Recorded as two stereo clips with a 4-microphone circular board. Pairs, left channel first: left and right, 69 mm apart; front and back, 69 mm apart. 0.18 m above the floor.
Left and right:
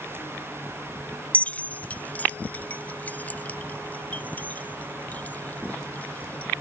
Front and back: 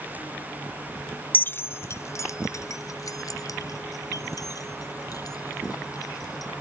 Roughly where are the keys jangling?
Ahead left.